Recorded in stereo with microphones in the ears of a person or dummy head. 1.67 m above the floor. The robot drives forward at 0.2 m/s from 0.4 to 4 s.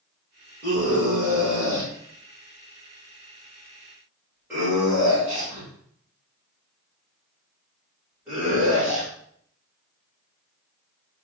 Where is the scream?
15° right (ahead or behind), 2 m; by 9.1 s 10° right (ahead or behind), 3 m.